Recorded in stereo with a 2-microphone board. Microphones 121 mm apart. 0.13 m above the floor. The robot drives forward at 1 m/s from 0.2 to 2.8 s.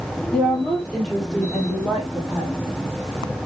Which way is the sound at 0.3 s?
10° left (ahead or behind).